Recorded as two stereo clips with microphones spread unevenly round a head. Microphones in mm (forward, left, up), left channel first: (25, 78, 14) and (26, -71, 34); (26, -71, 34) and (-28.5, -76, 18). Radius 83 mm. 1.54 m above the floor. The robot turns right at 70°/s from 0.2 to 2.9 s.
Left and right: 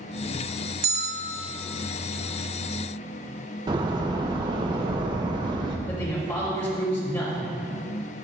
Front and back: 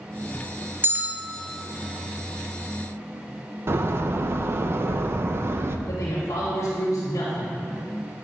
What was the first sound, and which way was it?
A bell, 120° right.